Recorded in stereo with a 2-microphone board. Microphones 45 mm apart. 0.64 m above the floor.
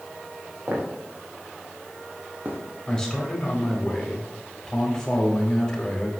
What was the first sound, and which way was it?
Footsteps, 50° right (ahead or behind).